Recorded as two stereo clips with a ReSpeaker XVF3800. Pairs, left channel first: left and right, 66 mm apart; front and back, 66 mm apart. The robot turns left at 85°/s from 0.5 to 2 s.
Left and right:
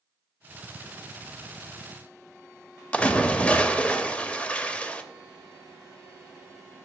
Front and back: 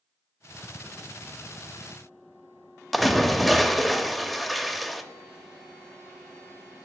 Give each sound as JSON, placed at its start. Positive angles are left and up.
{"t": 2.9, "sound": "a splash", "azimuth_deg": 85, "distance_m": 0.7}